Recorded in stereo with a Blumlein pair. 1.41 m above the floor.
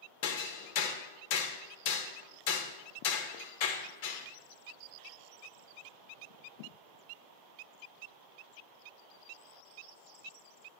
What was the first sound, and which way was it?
Hammering, 45° left.